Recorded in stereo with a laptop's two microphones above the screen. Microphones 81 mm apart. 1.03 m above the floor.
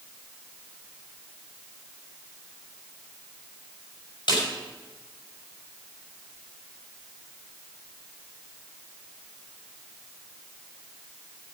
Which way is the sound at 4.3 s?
65° left (ahead or behind).